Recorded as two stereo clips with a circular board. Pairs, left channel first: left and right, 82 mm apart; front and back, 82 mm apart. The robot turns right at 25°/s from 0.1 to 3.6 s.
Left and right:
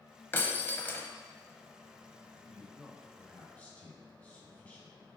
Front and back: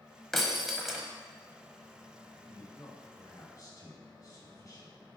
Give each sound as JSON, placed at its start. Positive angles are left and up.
{"t": 0.3, "sound": "breaking glass", "azimuth_deg": 85, "distance_m": 0.8}
{"t": 2.4, "sound": "a man speaking", "azimuth_deg": -5, "distance_m": 1.8}